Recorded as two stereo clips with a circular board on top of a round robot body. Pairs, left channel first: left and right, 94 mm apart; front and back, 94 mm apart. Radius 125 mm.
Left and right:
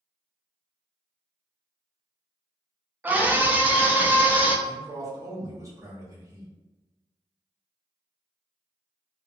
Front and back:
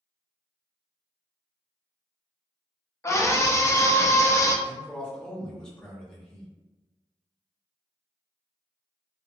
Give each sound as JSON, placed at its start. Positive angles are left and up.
{"t": 3.0, "sound": "a scream", "azimuth_deg": -30, "distance_m": 0.8}
{"t": 4.7, "sound": "a man speaking", "azimuth_deg": -75, "distance_m": 1.2}